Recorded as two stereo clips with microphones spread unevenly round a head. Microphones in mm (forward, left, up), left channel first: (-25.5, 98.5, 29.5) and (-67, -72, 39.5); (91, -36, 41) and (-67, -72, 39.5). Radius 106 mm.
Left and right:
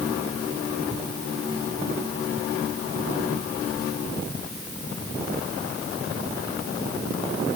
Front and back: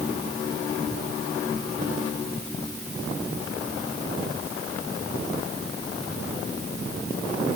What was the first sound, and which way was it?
Only background noise.